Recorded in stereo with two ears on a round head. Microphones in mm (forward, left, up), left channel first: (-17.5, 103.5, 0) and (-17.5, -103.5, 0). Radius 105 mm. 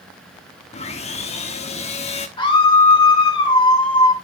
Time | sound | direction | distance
0.7 | sawing | 30° left (ahead or behind) | 1.0 m
2.4 | a scream | 25° left (ahead or behind) | 1.6 m